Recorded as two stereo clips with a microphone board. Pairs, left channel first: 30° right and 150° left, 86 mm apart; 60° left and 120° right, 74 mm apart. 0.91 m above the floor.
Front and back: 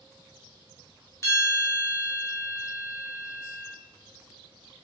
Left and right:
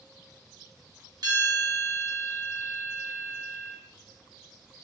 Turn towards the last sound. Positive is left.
turn(degrees=-85)